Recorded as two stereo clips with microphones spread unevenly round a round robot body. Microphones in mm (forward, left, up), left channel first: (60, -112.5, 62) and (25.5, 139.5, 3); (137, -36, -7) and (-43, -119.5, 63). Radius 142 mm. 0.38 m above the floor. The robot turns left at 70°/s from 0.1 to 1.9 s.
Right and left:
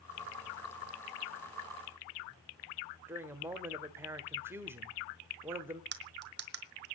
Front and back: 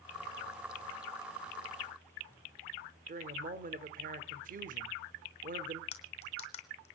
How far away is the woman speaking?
About 1.1 m.